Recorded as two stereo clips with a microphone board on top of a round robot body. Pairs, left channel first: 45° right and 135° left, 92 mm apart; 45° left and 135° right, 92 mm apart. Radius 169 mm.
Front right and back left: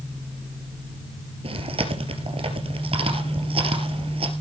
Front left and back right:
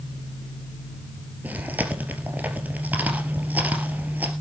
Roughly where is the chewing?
Behind left.